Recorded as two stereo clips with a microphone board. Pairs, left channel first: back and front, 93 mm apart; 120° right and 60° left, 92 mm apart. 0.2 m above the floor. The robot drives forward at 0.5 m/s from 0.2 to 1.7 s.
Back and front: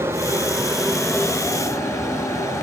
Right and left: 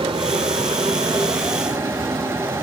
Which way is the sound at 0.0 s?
65° left.